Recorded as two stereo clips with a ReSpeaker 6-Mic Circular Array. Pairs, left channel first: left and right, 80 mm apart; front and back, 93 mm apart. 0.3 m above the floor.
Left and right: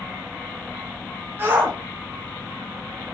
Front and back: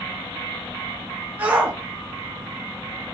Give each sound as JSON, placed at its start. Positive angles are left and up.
{"t": 1.4, "sound": "a shout", "azimuth_deg": -120, "distance_m": 1.0}